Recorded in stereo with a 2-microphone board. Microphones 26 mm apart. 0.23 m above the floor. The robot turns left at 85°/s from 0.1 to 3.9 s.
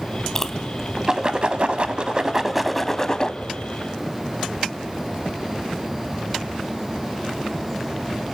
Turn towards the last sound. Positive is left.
turn(degrees=80)